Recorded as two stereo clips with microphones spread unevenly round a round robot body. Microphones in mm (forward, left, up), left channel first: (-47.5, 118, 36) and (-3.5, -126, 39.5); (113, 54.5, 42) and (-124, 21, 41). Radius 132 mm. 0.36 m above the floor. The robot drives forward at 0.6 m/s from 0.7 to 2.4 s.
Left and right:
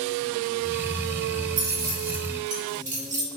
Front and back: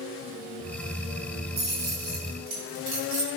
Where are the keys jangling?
125° right, 1.2 m; by 3.3 s 140° right, 1.5 m.